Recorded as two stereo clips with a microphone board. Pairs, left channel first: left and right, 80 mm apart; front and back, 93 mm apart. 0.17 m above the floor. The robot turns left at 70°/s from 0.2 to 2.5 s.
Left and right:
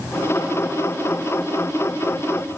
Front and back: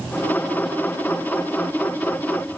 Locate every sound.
Only background noise.